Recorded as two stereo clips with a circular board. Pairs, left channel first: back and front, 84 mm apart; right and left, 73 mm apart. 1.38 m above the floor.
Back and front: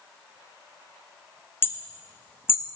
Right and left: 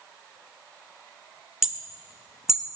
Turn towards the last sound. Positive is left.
turn(degrees=170)